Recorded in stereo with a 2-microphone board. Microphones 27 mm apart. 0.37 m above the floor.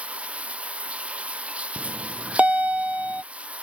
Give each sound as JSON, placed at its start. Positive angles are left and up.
{"t": 0.0, "sound": "running water", "side_deg": -50}
{"t": 1.8, "sound": "a bell", "side_deg": -55}